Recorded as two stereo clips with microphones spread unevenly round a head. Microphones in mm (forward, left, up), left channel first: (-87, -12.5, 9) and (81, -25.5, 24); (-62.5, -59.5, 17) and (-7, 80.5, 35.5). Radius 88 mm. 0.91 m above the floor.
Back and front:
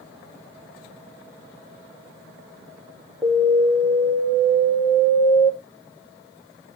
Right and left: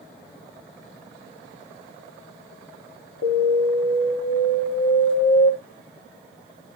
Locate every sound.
3.2 s an alarm: 105° right, 2.5 m